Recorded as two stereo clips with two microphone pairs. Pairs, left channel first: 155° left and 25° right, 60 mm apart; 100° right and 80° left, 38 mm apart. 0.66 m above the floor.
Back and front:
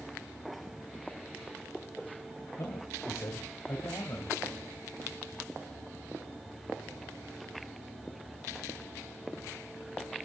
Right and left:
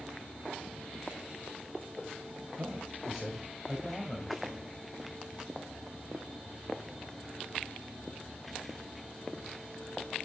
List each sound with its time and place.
2.6 s a man speaking: 135° left, 3 m; by 4.7 s 165° right, 4 m